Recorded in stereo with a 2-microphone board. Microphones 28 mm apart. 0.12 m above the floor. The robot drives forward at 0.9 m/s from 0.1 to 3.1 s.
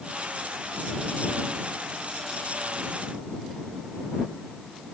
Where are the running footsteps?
I don't hear running footsteps.